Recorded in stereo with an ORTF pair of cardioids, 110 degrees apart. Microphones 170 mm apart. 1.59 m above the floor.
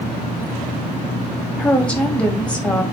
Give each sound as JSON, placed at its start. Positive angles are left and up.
{"t": 1.6, "sound": "a woman speaking", "azimuth_deg": 10, "distance_m": 0.8}